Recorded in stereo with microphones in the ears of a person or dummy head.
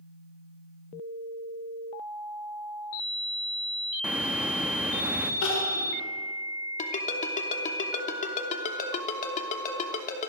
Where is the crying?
70° left (ahead or behind), 6.5 m.